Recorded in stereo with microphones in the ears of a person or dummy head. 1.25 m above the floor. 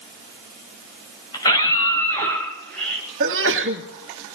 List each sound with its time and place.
1.3 s a scream: 25° left (ahead or behind), 7.5 m; by 3.0 s 5° left (ahead or behind), 7.5 m
3.2 s a sneeze: 70° right (ahead or behind), 1.9 m